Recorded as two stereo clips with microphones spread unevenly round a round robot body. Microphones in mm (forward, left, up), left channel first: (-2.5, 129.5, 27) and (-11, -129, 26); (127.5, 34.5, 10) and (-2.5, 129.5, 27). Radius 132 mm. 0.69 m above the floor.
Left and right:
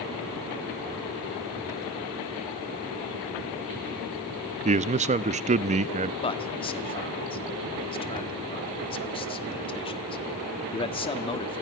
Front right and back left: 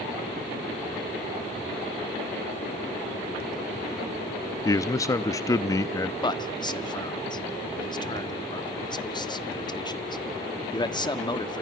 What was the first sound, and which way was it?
A man speaking, 65° right.